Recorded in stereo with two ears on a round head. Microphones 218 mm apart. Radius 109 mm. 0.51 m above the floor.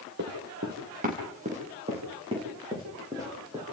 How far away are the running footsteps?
About 4.5 m.